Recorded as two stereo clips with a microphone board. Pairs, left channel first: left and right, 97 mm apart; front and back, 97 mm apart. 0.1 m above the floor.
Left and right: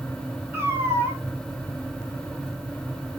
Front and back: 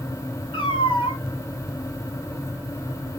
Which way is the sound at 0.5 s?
25° right.